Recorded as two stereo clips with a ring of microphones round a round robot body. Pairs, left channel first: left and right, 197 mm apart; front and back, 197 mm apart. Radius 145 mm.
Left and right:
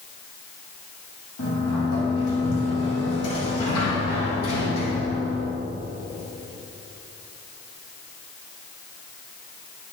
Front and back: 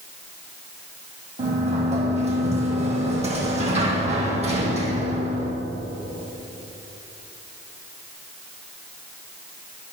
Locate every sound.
1.4 s a sliding door: 120° left, 3 m